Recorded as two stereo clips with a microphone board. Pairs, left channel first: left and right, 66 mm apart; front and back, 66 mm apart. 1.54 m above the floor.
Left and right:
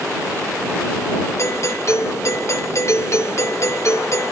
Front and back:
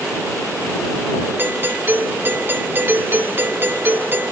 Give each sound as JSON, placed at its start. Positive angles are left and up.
{"t": 1.4, "sound": "a doorbell", "azimuth_deg": 125}